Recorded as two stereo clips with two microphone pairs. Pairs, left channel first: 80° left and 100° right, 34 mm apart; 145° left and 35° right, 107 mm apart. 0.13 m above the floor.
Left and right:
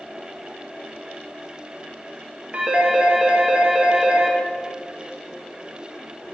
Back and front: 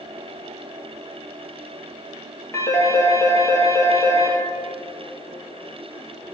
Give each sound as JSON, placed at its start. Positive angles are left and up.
{"t": 2.5, "sound": "a phone ringing", "azimuth_deg": -150, "distance_m": 1.9}